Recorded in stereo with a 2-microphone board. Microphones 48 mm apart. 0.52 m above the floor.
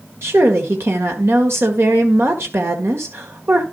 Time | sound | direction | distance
0.2 | a woman speaking | 60° right (ahead or behind) | 1.8 m